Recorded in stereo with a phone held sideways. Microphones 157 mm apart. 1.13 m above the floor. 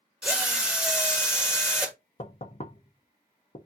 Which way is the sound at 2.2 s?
45° left (ahead or behind).